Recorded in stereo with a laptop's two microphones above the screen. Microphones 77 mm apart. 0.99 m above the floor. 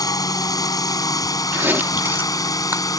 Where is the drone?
50° left (ahead or behind).